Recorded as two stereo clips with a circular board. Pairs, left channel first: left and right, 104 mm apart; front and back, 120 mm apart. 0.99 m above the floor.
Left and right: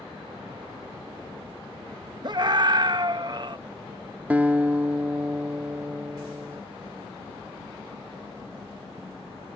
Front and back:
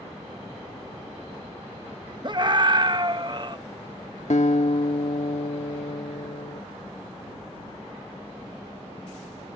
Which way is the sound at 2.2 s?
130° right.